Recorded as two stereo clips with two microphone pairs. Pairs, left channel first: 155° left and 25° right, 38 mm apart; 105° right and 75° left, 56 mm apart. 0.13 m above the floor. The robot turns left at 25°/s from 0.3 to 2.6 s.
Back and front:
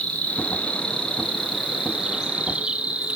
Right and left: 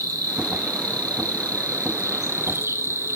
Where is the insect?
95° left, 0.9 m; by 3.2 s 35° left, 0.9 m.